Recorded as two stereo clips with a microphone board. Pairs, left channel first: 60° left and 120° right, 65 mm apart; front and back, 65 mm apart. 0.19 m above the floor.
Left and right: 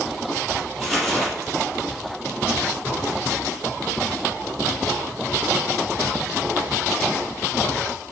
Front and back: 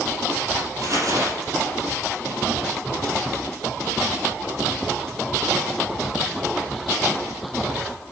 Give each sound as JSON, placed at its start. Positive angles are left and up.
{"t": 0.8, "sound": "crumpling", "azimuth_deg": 150, "distance_m": 4.5}